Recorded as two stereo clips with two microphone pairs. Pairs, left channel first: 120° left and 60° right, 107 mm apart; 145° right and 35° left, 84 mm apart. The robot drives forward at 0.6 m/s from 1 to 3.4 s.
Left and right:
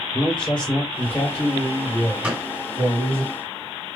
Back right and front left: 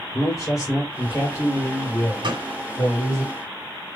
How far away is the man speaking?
About 2.0 m.